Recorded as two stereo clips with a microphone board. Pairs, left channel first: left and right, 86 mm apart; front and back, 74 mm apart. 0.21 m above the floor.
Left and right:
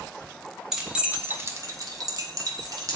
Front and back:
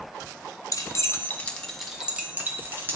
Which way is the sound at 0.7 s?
5° right.